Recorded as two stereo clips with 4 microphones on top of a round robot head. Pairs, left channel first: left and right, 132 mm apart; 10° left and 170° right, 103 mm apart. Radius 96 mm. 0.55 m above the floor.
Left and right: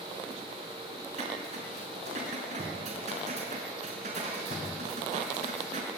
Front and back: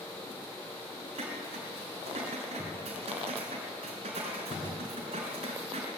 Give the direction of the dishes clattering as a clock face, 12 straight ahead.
4 o'clock.